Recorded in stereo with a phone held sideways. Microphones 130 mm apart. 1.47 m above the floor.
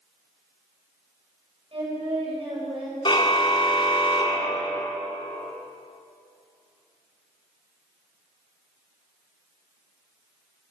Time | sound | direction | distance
1.7 | singing | 45° right (ahead or behind) | 7.5 m
3.0 | a car horn | 40° left (ahead or behind) | 2.5 m